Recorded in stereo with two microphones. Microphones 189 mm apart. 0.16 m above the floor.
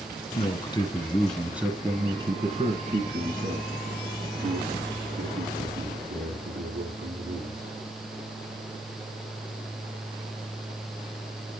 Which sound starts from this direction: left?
A man speaking, at 0.3 s.